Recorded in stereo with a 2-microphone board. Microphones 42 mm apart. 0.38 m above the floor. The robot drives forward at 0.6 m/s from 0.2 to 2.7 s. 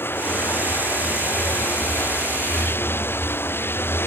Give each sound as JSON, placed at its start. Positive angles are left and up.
{"t": 0.0, "sound": "running water", "side_deg": 65}